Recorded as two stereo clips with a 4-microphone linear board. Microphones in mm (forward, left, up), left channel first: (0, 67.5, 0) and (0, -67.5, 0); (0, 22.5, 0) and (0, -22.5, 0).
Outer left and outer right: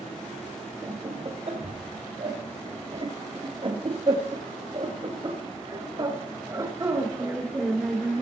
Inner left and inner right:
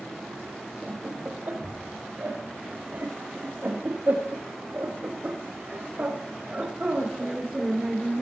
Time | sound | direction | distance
0.8 | laughter | 50° right (ahead or behind) | 4 m